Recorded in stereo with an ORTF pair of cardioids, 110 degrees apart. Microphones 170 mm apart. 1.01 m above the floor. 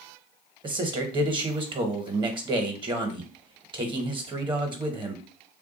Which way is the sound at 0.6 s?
30° right.